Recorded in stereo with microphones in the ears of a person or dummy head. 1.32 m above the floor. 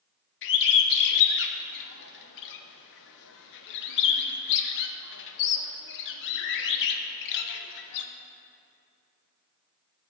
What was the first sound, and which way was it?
A bird, 60° left (ahead or behind).